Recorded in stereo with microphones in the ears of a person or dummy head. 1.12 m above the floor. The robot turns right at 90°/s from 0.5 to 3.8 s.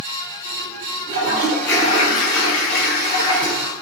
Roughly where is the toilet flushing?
Ahead right.